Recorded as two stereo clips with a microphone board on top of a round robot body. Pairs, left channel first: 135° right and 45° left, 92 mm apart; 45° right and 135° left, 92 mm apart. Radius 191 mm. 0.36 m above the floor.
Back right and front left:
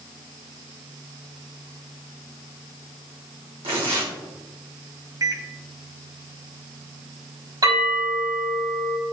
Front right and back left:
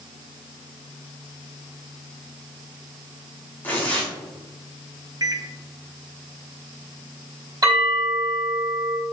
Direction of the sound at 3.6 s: 25° left.